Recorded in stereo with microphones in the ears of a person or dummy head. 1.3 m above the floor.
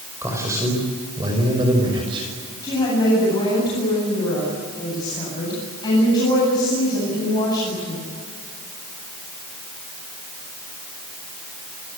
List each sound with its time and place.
0.2 s a man speaking: 15° right (ahead or behind), 5 m; by 2.3 s 30° right (ahead or behind), 6 m
2.6 s a woman speaking: 25° left (ahead or behind), 9 m